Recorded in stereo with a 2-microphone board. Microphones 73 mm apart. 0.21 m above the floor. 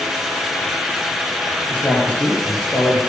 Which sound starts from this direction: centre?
A man speaking, at 1.7 s.